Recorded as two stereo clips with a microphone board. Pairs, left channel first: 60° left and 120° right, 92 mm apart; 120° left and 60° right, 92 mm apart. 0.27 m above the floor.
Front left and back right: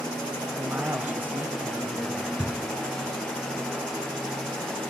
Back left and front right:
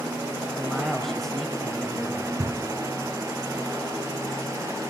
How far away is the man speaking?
About 1.4 m.